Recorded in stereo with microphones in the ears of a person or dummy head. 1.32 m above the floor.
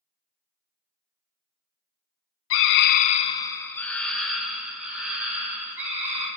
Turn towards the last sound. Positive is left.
turn(degrees=-10)  # may be behind; listen again after turning